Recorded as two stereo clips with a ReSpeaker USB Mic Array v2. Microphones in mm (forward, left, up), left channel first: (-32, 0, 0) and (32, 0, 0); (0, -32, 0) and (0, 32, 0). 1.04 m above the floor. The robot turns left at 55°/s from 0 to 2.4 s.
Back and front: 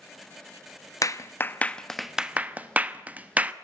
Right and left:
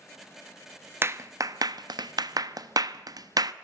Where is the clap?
145° left, 0.9 m; by 3.5 s 65° left, 0.9 m.